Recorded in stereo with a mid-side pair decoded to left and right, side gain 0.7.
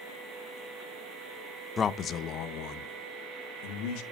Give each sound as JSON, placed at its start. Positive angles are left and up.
{"t": 1.8, "sound": "a man speaking", "azimuth_deg": 25, "distance_m": 0.6}